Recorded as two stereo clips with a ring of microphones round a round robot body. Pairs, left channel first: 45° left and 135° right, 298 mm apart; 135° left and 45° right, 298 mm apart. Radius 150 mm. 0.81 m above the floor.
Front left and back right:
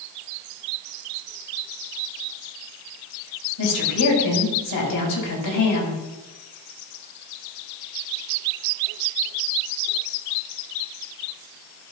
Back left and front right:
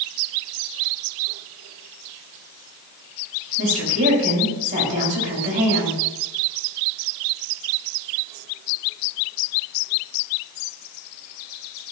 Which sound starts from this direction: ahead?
A woman speaking, at 3.6 s.